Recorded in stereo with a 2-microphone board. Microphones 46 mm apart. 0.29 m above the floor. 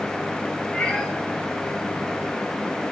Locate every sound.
0.7 s a cat meowing: 20° left (ahead or behind), 4 m